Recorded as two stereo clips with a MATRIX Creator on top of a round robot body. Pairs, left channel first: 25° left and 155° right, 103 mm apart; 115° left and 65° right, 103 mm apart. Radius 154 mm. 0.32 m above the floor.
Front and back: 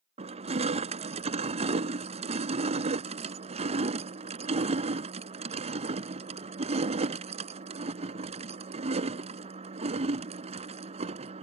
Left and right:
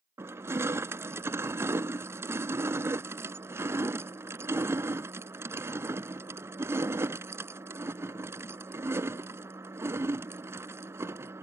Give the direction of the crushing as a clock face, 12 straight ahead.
5 o'clock.